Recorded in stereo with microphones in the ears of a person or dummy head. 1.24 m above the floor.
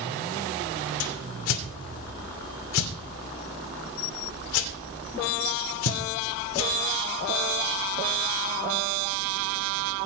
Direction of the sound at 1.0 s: 75° left (ahead or behind).